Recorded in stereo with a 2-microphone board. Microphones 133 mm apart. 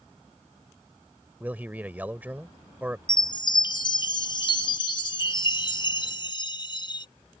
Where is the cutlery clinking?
No cutlery clinking in this recording.